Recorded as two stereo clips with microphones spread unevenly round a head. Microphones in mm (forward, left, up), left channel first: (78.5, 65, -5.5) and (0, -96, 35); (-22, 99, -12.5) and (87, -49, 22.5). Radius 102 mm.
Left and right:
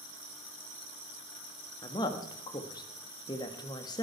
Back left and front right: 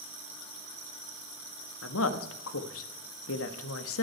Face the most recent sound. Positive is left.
turn(degrees=135)